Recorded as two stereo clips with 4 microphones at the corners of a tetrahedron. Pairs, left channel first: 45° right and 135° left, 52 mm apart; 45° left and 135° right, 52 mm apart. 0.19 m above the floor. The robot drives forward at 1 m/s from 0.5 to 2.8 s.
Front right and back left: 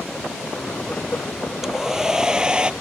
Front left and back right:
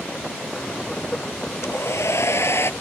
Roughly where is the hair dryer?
Ahead left.